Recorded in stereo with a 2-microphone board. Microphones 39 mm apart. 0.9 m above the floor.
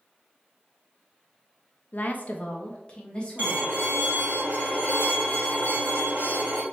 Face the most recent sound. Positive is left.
turn(degrees=-50)  # may be behind; listen again after turning